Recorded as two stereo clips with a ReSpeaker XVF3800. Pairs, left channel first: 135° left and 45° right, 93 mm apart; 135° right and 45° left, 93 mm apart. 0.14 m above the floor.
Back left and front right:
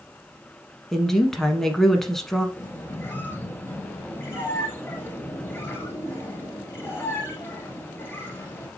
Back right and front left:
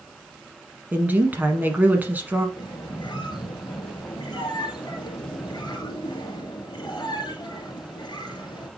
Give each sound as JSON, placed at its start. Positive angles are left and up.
{"t": 0.9, "sound": "a woman speaking", "azimuth_deg": 55, "distance_m": 1.1}
{"t": 2.6, "sound": "a squeak", "azimuth_deg": -160, "distance_m": 1.7}